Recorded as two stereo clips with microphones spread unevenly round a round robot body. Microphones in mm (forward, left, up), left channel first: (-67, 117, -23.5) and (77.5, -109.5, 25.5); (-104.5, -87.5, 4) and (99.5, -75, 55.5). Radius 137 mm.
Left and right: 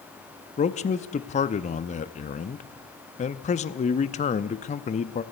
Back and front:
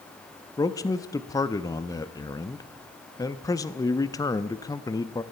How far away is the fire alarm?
No fire alarm in this recording.